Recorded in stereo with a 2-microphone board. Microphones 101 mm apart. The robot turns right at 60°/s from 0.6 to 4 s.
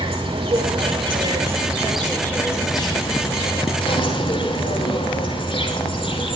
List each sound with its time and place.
0.0 s an insect: 85° right, 5.5 m; by 6.4 s 120° left, 5.5 m